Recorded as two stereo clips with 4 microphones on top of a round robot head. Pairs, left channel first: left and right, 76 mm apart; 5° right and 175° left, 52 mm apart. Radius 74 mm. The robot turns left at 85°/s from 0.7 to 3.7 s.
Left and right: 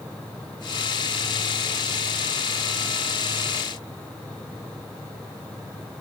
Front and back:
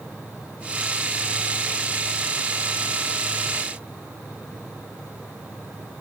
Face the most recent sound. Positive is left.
No sound to turn to.